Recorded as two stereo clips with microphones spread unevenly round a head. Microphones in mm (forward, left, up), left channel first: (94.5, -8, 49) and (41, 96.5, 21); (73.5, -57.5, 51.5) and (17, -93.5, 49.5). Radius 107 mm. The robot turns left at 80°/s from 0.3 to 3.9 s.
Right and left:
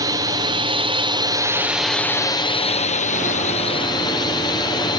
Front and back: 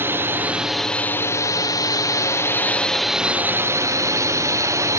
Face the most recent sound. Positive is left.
turn(degrees=-125)